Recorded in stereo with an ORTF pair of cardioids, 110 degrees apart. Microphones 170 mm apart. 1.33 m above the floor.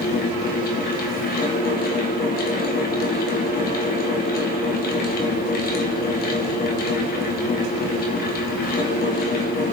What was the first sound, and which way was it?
A fan, 70° left.